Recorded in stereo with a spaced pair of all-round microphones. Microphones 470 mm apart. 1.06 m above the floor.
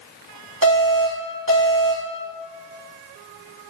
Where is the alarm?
25° left (ahead or behind), 1.2 m.